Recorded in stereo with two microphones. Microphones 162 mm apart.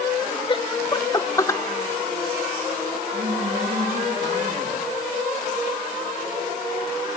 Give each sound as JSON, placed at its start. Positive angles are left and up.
{"t": 0.5, "sound": "laughter", "side_deg": 30, "distance_m": 1.3}
{"t": 3.1, "sound": "a woman speaking", "side_deg": -70, "distance_m": 9.5}